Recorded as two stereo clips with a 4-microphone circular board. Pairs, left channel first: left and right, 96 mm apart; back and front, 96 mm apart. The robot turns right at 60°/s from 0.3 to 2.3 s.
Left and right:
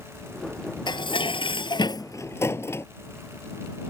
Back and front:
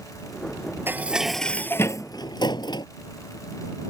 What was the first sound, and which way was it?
Dishes clattering, 65° left.